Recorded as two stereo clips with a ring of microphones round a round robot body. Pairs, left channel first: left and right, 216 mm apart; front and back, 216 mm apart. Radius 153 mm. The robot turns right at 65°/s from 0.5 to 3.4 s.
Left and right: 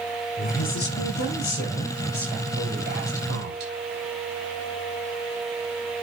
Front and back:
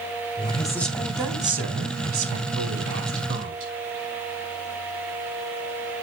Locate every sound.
0.4 s a woman speaking: 65° left, 3 m; by 3.7 s 110° right, 3 m